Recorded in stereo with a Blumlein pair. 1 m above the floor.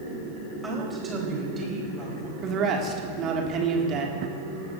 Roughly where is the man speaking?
Ahead right.